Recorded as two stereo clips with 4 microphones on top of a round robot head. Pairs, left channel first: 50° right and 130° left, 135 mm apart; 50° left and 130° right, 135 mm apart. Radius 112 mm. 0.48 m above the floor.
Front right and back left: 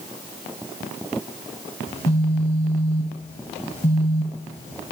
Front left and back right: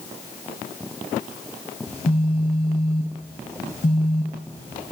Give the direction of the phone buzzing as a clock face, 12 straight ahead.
12 o'clock.